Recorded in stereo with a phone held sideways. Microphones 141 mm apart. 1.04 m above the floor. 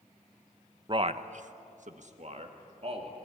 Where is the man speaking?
35° right (ahead or behind), 0.9 m; by 3.2 s 45° right (ahead or behind), 3 m.